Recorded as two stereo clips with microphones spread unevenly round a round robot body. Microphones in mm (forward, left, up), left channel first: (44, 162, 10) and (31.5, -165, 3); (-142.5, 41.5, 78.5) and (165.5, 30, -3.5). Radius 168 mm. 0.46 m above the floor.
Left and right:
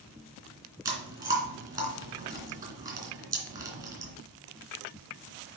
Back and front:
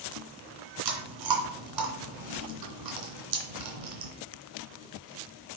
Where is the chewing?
10° right, 2.5 m.